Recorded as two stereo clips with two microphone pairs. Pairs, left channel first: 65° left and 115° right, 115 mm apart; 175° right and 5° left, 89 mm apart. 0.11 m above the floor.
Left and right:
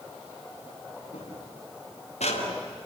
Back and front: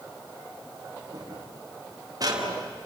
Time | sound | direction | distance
1.1 | footsteps | 50° left | 6 m